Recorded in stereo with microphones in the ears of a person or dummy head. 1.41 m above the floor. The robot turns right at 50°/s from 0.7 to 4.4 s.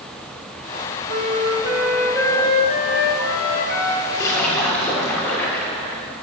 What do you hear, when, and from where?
1.1 s a flute: 50° right, 1.0 m; by 4.0 s 95° left, 1.0 m
4.1 s a splash: 20° left (ahead or behind), 1.3 m; by 6.0 s 10° left (ahead or behind), 1.3 m